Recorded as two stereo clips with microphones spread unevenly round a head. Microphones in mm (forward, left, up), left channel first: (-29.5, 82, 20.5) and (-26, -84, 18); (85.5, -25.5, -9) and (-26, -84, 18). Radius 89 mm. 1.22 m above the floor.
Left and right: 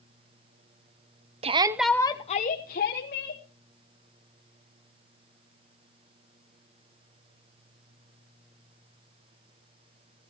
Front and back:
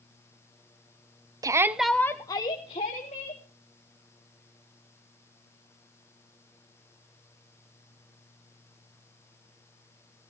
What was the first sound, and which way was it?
A shout, 90° right.